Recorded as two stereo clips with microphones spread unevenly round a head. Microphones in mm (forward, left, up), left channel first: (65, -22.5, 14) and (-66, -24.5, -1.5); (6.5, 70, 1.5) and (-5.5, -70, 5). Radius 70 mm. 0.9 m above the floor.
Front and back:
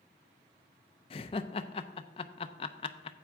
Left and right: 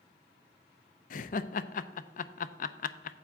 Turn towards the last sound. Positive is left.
turn(degrees=55)